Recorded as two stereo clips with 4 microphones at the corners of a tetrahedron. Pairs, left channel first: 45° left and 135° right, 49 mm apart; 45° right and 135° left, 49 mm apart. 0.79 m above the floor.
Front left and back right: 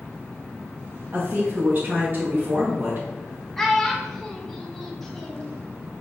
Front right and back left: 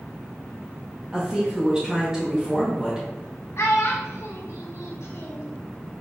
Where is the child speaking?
40° right, 0.9 m.